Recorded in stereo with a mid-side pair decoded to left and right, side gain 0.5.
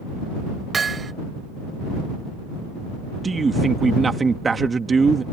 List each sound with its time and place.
0.7 s hammering: 35° right
3.2 s a man speaking: 30° right